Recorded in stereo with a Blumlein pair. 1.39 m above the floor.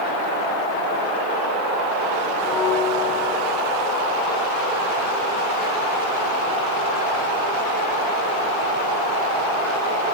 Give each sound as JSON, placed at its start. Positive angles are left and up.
{"t": 2.4, "sound": "a bell", "azimuth_deg": -35, "distance_m": 5.5}